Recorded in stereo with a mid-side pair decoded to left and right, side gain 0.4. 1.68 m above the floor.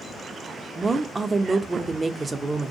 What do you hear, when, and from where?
0.8 s a woman speaking: 30° right, 0.6 m